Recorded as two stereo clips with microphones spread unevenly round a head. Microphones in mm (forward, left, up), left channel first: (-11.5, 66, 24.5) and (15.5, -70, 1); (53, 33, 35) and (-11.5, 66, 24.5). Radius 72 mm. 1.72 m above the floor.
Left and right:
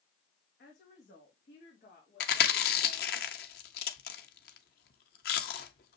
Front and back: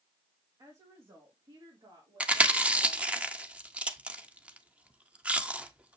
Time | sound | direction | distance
0.6 | a woman speaking | 115° left | 2 m
2.2 | chewing | 80° left | 1.2 m